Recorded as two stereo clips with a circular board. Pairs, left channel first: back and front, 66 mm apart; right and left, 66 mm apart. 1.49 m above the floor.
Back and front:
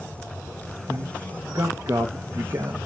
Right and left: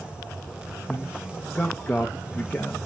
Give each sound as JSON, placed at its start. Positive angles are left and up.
{"t": 0.9, "sound": "a man speaking", "azimuth_deg": -25, "distance_m": 0.6}